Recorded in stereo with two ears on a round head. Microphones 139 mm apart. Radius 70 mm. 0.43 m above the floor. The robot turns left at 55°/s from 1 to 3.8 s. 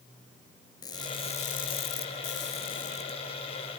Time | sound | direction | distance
0.8 | crushing | 150° left | 3 m